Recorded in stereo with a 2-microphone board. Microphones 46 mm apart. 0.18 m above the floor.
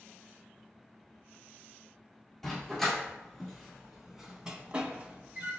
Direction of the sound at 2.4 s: 5° left (ahead or behind).